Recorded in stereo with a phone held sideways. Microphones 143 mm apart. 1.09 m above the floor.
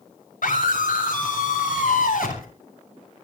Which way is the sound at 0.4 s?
85° left.